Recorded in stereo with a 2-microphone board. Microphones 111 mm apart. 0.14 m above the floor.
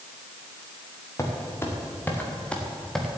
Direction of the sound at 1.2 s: 25° left (ahead or behind).